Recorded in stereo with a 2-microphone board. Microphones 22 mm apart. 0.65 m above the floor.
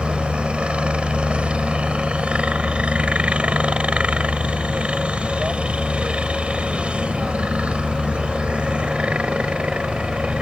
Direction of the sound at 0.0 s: 55° right (ahead or behind).